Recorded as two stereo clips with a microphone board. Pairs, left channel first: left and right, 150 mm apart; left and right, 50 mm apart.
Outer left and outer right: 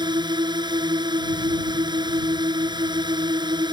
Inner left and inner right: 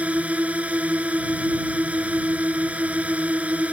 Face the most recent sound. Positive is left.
turn(degrees=-30)  # may be behind; listen again after turning